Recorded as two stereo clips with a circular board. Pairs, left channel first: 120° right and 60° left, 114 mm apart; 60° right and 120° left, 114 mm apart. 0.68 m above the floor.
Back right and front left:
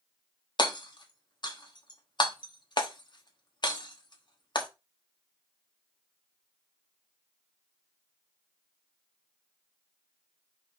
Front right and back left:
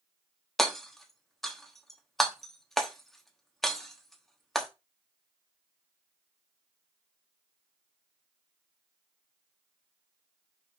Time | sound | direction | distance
0.6 | hammering | 145° right | 1.1 m